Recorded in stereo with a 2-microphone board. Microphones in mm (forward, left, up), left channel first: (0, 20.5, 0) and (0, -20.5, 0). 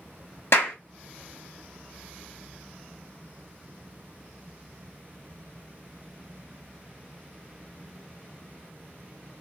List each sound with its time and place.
0.5 s a clap: 80° left, 0.9 m